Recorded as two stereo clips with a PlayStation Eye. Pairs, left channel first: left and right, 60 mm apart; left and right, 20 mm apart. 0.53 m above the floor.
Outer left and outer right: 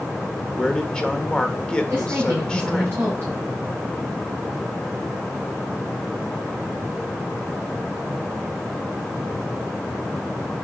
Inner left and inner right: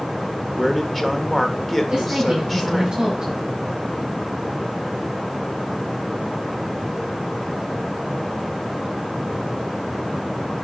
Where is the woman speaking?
40° right (ahead or behind), 6 m.